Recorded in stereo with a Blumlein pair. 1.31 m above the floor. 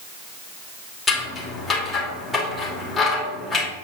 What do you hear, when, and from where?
1.1 s scissors: 5° left, 2.5 m